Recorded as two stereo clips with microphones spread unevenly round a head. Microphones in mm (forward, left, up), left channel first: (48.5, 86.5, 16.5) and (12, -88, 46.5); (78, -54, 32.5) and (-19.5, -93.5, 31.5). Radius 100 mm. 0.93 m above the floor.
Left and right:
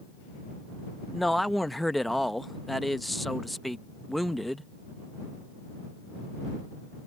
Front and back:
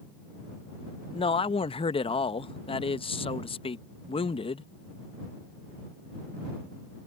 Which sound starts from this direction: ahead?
A man speaking, at 1.1 s.